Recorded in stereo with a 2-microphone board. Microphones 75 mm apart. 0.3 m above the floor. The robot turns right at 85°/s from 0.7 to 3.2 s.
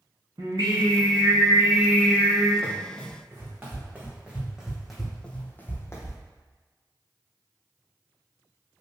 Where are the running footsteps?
10° left (ahead or behind), 1.7 m; by 6.2 s 50° left (ahead or behind), 0.8 m.